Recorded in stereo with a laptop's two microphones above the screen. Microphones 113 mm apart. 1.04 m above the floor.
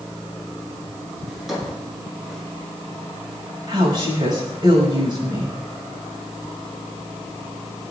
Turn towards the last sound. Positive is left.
turn(degrees=-40)  # may be behind; listen again after turning